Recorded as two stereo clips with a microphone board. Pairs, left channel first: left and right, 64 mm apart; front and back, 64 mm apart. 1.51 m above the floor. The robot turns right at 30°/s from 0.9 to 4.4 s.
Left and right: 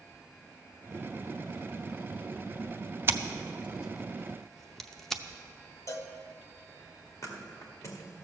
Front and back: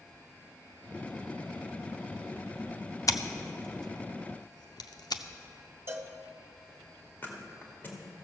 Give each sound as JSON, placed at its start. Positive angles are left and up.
{"t": 3.1, "sound": "scissors", "azimuth_deg": -35, "distance_m": 0.6}
{"t": 5.9, "sound": "a cowbell", "azimuth_deg": 130, "distance_m": 0.8}
{"t": 7.2, "sound": "a thud", "azimuth_deg": 55, "distance_m": 2.0}